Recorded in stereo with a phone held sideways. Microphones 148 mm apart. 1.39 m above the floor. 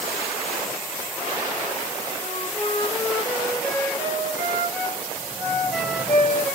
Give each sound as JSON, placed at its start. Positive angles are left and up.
{"t": 2.2, "sound": "a flute", "side_deg": 10, "distance_m": 2.5}